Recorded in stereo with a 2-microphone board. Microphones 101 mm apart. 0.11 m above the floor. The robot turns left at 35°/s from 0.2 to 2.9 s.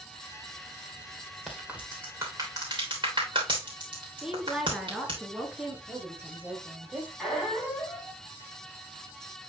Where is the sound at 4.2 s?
5° right (ahead or behind), 1.4 m.